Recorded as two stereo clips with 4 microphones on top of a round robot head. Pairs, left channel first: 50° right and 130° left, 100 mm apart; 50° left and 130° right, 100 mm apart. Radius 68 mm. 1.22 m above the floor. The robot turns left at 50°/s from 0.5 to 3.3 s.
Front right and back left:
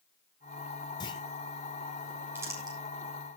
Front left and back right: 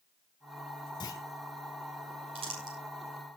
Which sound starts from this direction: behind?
Crumpling, at 2.4 s.